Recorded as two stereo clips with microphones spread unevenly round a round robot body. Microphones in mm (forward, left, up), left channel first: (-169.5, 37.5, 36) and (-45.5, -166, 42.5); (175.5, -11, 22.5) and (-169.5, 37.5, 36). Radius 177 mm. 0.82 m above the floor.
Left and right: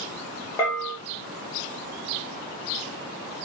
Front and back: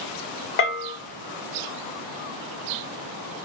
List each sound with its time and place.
0.6 s a bell: 40° left, 1.0 m